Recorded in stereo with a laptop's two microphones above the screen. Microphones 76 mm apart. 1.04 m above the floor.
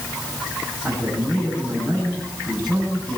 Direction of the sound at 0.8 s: 20° left (ahead or behind).